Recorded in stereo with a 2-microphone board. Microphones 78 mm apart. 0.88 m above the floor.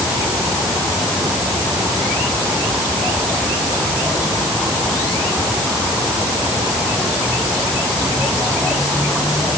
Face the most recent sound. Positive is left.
No sound to turn to.